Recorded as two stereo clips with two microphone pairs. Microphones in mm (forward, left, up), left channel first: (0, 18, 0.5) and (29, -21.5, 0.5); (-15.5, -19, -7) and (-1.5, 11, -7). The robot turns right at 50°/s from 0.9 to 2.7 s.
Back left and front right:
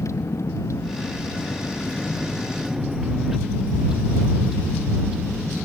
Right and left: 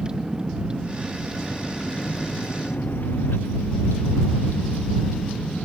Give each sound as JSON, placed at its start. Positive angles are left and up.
{"t": 0.0, "sound": "a vehicle", "azimuth_deg": 135}